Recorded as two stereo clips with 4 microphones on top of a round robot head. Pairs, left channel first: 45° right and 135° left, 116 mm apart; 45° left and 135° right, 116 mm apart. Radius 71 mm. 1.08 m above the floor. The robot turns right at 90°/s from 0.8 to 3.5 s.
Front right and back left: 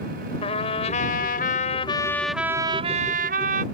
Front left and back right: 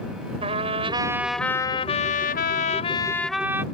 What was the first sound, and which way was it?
A trumpet, 90° right.